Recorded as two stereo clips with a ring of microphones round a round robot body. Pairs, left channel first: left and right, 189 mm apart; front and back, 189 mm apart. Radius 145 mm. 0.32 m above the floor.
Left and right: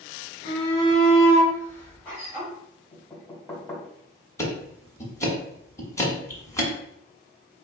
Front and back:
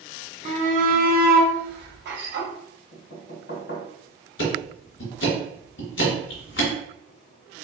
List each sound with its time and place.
0.5 s a shout: 140° left, 1.2 m; by 2.5 s 175° left, 1.9 m
2.9 s knocking: 15° left, 2 m
4.4 s ticking: 15° left, 1.7 m